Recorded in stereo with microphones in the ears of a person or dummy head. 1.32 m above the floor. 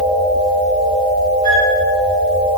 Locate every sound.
1.4 s a flute: 80° left, 2.5 m